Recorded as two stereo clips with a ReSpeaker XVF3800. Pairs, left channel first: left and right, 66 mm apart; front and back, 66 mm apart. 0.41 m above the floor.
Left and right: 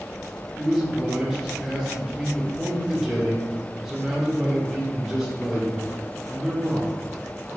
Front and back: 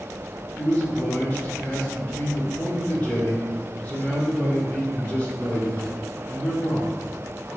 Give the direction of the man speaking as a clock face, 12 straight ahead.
1 o'clock.